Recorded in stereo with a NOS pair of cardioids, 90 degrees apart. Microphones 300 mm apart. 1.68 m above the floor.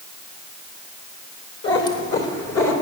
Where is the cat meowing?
50° left, 3 m; by 2.7 s 60° left, 3 m.